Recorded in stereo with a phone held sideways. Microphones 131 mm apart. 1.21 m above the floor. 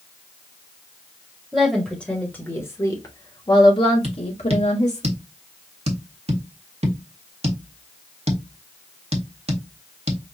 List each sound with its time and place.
1.5 s a woman speaking: centre (ahead or behind), 1.6 m; by 5.0 s 65° left (ahead or behind), 2.0 m
4.0 s tapping: 55° right (ahead or behind), 1.2 m